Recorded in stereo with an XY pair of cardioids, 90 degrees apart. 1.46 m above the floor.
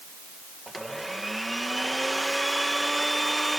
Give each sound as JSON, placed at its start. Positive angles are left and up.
{"t": 0.7, "sound": "a blender", "azimuth_deg": -5}